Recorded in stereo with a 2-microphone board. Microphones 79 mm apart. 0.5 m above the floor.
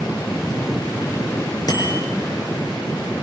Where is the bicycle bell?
50° left (ahead or behind), 8.5 m.